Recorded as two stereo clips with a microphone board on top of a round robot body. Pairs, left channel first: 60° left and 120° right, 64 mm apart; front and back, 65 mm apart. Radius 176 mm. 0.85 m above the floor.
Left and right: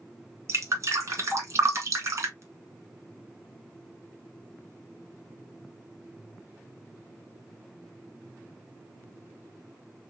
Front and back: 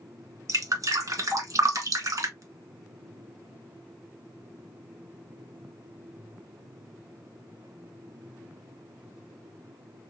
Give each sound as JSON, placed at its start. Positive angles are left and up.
{"t": 0.5, "sound": "dripping", "azimuth_deg": -155, "distance_m": 1.7}